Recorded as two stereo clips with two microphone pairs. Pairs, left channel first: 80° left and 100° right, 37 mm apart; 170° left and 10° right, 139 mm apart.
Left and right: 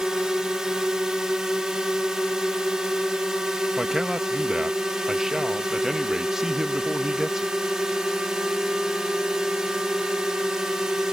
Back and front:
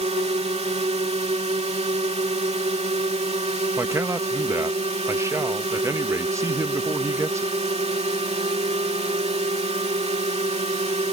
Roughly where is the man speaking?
Ahead right.